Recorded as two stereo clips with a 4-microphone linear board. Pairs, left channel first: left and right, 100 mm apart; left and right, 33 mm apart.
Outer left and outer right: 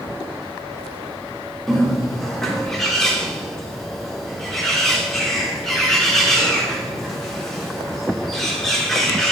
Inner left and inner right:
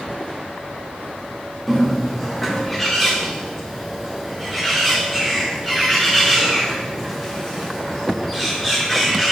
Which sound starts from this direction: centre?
A bird, at 1.7 s.